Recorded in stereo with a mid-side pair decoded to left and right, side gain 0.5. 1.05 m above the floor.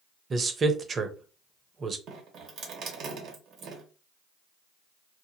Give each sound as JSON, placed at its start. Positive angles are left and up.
{"t": 0.3, "sound": "a man speaking", "azimuth_deg": -35, "distance_m": 0.7}
{"t": 2.1, "sound": "dripping", "azimuth_deg": -70, "distance_m": 1.5}